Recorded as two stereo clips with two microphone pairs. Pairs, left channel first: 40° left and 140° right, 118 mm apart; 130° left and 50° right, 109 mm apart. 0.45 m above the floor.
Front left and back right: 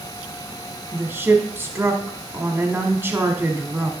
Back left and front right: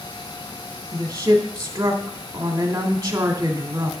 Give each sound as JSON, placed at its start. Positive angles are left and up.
{"t": 0.9, "sound": "a woman speaking", "azimuth_deg": -75, "distance_m": 1.1}